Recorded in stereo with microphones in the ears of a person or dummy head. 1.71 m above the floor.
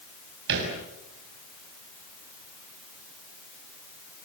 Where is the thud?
65° right (ahead or behind), 6 m.